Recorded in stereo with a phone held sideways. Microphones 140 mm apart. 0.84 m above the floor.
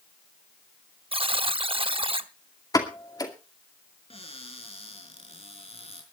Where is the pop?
30° left (ahead or behind), 2.5 m.